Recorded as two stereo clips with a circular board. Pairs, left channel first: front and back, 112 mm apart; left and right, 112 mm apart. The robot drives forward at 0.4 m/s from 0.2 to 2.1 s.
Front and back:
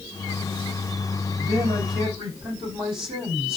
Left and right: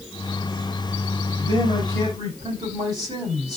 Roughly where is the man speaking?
Behind right.